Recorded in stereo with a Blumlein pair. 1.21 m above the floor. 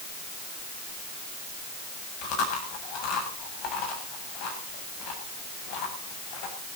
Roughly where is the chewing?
Ahead left.